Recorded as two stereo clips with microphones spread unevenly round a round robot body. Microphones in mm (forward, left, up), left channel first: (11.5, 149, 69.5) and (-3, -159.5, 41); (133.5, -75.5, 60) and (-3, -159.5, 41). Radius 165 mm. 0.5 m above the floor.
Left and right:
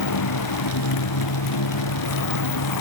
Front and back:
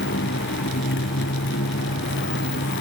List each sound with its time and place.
0.0 s a motorcycle: 60° left